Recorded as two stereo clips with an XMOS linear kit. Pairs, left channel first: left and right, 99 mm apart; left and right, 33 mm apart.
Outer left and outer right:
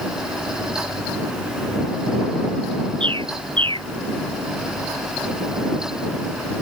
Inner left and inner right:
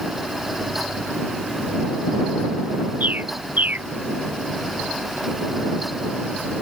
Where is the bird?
55° right (ahead or behind).